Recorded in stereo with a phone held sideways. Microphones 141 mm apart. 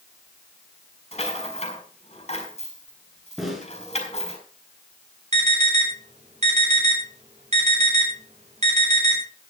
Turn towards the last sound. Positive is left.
turn(degrees=-55)  # may be behind; listen again after turning